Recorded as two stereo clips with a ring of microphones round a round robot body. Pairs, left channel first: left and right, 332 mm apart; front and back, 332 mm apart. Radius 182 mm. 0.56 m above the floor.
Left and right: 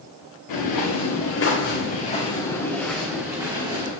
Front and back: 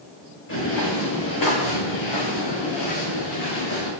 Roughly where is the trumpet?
No trumpet in this recording.